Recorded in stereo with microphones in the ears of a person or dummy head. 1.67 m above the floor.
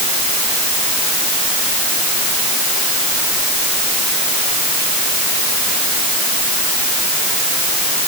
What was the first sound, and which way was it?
Only background noise.